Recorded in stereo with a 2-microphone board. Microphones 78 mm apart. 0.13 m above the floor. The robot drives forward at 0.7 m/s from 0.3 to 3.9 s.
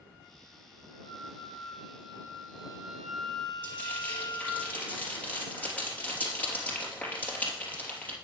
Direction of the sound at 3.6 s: 20° left (ahead or behind).